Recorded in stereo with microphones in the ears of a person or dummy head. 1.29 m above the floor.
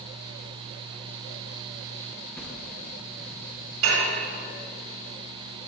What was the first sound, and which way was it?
A whoosh, 15° left (ahead or behind).